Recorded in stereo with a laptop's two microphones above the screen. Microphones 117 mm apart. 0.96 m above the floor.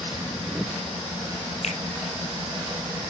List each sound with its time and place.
1.6 s a finger snap: 75° left (ahead or behind), 5.5 m